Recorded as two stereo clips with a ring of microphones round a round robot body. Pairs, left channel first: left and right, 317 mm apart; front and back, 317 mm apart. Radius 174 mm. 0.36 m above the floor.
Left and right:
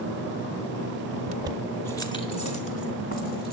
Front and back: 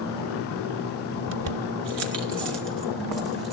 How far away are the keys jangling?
About 0.7 m.